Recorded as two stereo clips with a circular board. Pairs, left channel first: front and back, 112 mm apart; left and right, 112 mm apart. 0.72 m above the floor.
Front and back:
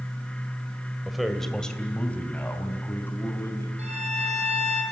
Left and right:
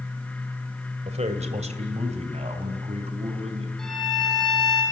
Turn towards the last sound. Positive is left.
turn(degrees=175)